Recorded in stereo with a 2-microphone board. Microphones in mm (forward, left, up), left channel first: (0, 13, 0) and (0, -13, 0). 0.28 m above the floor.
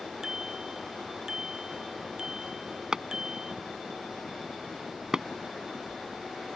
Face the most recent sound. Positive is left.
turn(degrees=-25)  # may be behind; listen again after turning